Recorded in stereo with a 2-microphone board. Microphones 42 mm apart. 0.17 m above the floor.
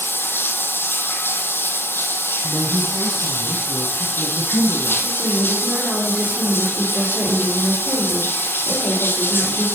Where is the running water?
60° left (ahead or behind), 1.2 m.